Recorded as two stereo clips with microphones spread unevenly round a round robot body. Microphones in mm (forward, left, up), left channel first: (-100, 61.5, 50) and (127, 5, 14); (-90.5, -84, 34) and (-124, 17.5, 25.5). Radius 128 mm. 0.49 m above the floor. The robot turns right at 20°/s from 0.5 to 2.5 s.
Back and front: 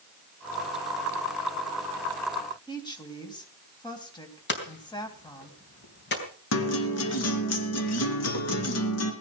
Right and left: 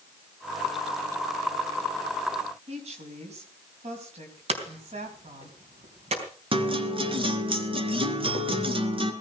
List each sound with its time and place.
2.7 s a woman speaking: 90° left, 3.5 m
4.5 s hammering: 120° left, 4 m
6.5 s a guitar: 145° left, 2.5 m